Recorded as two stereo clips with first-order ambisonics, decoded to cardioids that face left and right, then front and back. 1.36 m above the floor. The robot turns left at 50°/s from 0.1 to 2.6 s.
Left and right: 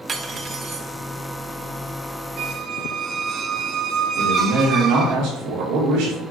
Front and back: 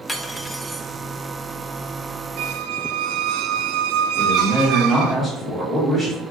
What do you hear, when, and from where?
0.1 s cutlery clinking: 60° right, 0.6 m; by 0.9 s 100° right, 0.6 m
2.4 s a squeak: 140° right, 0.6 m; by 5.2 s 150° right, 0.6 m
4.2 s a man speaking: 90° right, 3 m